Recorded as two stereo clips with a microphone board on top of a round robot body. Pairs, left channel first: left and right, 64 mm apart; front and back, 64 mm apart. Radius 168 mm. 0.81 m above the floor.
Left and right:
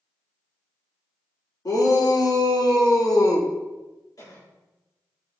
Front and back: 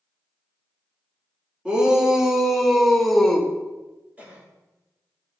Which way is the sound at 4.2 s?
115° left.